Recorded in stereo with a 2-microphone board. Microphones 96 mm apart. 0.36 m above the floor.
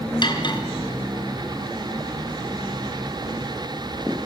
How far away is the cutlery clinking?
About 3 m.